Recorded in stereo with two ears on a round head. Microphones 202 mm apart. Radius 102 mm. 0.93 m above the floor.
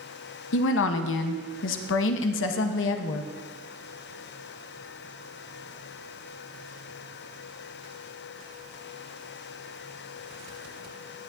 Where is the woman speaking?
60° left (ahead or behind), 0.7 m.